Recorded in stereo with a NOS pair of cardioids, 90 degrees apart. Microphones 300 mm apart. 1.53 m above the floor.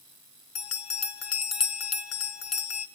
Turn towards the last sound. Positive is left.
turn(degrees=55)